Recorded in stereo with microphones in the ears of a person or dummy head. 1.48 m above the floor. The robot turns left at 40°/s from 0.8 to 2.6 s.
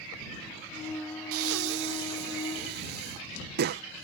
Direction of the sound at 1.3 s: 75° right (ahead or behind).